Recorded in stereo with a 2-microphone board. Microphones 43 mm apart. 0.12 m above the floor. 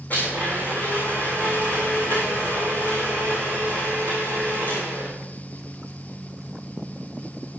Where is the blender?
40° left (ahead or behind), 9 m.